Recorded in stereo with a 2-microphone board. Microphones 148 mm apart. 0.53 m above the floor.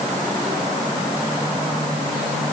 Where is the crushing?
I don't hear crushing.